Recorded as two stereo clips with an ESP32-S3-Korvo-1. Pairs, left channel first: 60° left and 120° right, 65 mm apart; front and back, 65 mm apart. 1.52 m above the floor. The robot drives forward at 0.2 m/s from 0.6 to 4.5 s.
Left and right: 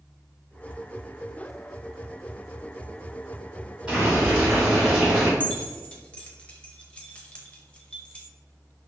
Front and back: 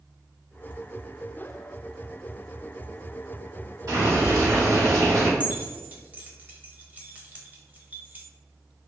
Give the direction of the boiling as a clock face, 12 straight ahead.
6 o'clock.